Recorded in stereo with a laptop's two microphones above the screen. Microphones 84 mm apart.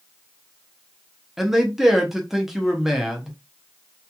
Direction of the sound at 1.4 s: 5° right (ahead or behind).